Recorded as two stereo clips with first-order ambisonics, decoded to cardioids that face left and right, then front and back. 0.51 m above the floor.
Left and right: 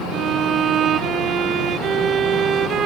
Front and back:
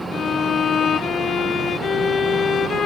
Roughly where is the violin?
Ahead right.